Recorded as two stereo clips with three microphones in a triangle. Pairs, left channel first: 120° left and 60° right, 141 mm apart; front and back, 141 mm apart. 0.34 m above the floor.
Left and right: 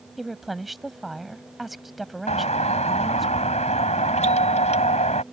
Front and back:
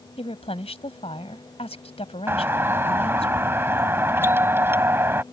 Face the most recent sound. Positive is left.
turn(degrees=110)